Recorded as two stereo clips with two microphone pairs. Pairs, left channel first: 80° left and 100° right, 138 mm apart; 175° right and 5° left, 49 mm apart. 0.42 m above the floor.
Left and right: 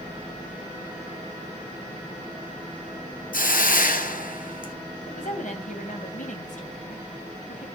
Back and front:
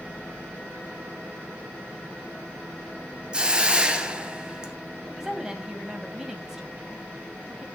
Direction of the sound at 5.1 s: 85° left.